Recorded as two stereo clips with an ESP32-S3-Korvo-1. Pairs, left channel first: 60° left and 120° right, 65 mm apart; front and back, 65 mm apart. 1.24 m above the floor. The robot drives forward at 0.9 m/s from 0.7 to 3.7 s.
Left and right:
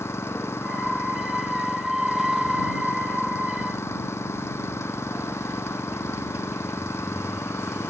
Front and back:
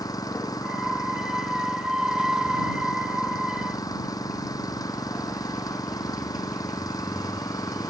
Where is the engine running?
10° left.